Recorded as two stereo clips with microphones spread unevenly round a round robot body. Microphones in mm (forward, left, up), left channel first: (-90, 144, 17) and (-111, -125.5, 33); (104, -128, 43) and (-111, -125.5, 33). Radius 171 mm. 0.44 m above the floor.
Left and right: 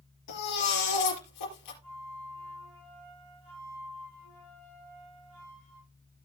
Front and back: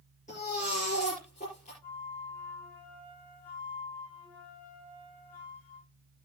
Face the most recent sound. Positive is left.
turn(degrees=-80)